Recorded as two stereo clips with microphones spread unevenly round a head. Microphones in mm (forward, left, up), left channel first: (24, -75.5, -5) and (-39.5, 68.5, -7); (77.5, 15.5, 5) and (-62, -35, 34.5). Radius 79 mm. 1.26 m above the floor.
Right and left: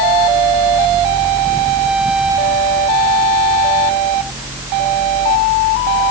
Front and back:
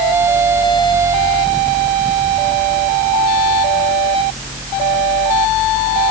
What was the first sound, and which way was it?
Only background noise.